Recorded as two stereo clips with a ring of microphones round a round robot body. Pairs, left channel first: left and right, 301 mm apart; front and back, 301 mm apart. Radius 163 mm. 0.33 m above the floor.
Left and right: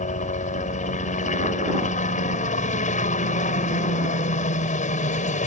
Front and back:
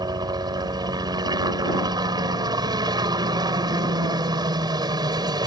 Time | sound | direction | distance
0.0 | a helicopter | 120° left | ?